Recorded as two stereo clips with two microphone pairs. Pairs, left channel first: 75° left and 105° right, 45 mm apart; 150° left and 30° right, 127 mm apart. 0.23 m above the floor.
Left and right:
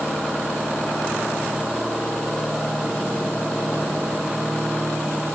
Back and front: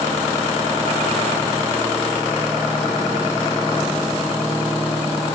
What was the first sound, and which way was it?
Only background noise.